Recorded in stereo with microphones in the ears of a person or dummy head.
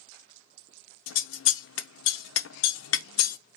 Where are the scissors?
75° left (ahead or behind), 0.6 m.